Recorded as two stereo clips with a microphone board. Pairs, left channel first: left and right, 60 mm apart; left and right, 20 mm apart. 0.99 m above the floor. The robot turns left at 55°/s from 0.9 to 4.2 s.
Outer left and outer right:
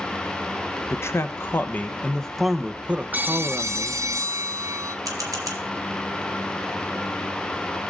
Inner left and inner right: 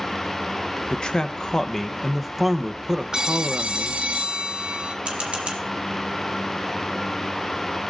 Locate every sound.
0.9 s a man speaking: 85° left, 0.9 m; by 4.0 s 85° right, 0.9 m
3.1 s a phone ringing: 35° right, 0.6 m; by 5.0 s 95° right, 0.6 m
5.0 s a camera shutter: 75° right (ahead or behind), 1.7 m